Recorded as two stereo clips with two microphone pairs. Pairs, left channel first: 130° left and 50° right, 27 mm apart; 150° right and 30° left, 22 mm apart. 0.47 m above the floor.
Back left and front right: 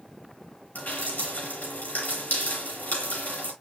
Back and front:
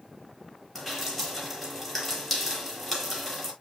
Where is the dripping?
110° left, 7.5 m.